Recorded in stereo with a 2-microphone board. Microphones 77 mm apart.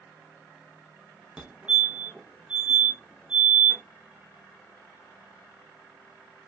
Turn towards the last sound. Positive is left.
turn(degrees=-15)  # may be behind; listen again after turning